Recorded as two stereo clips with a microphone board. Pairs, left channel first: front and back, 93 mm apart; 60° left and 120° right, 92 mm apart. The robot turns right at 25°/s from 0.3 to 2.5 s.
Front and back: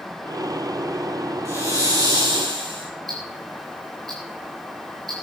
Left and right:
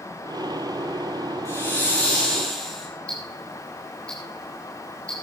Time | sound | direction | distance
1.4 | a hiss | 120° left | 6.5 m
3.1 | ticking | 140° left | 9 m